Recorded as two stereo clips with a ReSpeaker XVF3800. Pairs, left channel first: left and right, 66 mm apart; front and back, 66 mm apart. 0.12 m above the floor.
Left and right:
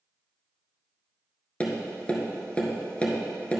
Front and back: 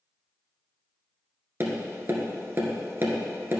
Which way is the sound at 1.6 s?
150° left.